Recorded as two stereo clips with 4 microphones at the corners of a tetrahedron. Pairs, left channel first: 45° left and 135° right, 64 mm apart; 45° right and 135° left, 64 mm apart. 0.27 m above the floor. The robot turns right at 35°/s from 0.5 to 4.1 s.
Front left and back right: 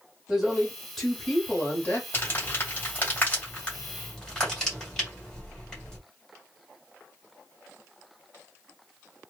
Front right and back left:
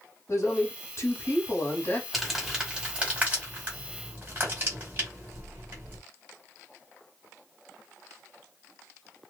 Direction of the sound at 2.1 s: 50° left.